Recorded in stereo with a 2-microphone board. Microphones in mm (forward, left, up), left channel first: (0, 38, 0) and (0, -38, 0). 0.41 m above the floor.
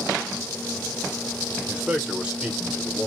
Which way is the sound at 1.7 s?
15° right (ahead or behind).